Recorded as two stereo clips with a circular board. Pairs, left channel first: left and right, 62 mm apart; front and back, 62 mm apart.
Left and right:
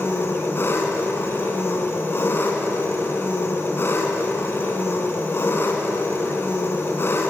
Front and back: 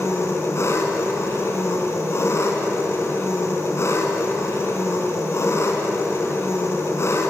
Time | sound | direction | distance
0.0 | an engine running | 40° left | 3.5 m